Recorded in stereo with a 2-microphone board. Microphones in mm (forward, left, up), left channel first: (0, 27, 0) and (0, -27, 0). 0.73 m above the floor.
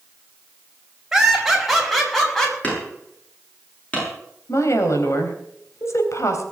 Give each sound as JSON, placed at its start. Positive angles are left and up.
{"t": 1.1, "sound": "laughter", "side_deg": -5, "distance_m": 5.5}
{"t": 2.6, "sound": "hammering", "side_deg": 25, "distance_m": 9.5}
{"t": 4.5, "sound": "a woman speaking", "side_deg": 65, "distance_m": 3.5}